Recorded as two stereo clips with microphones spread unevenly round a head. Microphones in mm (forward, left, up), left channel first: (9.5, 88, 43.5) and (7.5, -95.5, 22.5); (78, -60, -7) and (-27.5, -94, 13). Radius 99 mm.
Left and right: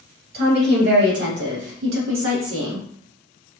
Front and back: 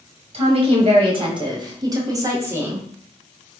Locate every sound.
0.3 s a woman speaking: 130° right, 2 m; by 2.9 s 85° right, 1.5 m